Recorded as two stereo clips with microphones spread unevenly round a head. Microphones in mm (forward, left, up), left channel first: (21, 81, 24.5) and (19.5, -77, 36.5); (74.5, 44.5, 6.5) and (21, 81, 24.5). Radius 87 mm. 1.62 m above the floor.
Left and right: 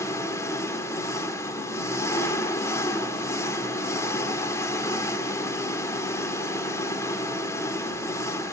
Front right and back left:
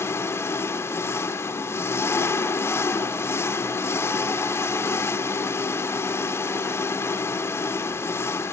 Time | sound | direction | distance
0.0 | an engine running | 20° left | 1.6 m